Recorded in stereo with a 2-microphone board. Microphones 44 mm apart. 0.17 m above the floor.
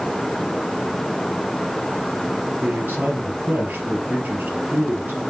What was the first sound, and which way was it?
A man speaking, 40° right (ahead or behind).